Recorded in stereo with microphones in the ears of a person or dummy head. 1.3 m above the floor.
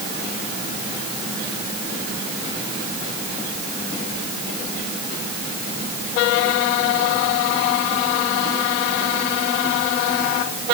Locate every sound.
Only background noise.